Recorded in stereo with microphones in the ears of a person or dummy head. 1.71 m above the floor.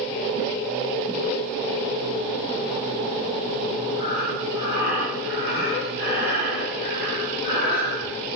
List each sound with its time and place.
4.0 s breathing: 55° left (ahead or behind), 3 m